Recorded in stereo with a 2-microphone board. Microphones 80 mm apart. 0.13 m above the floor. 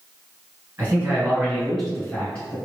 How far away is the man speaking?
About 1.6 m.